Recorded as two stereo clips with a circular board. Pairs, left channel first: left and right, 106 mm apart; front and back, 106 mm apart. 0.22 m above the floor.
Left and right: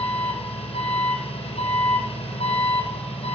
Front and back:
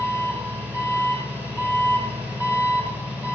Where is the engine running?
110° left, 3 m.